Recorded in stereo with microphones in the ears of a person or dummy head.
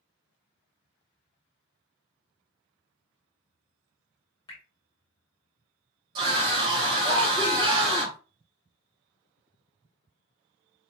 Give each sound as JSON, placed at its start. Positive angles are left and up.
{"t": 4.5, "sound": "dripping", "side_deg": 15, "distance_m": 0.9}
{"t": 6.2, "sound": "a scream", "side_deg": -30, "distance_m": 1.4}